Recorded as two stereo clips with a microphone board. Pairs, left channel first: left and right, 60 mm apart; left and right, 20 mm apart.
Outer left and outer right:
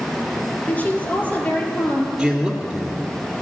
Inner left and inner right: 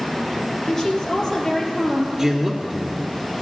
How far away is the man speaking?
About 1.4 m.